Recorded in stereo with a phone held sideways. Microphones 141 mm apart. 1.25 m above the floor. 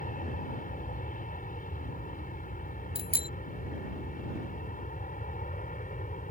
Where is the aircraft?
75° left (ahead or behind); by 6.3 s 70° left (ahead or behind).